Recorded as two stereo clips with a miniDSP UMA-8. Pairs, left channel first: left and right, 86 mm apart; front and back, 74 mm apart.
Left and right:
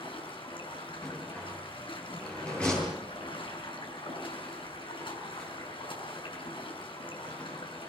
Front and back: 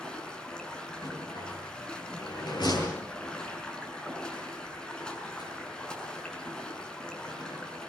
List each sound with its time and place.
0.0 s running water: 80° left, 6 m
1.0 s a rattle: 10° left, 10 m